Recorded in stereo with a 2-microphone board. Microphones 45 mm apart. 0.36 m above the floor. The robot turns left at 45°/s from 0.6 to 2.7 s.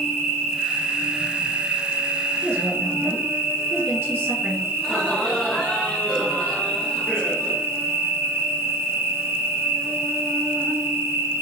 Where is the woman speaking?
55° right (ahead or behind), 2.0 m; by 4.6 s 50° right (ahead or behind), 2.0 m.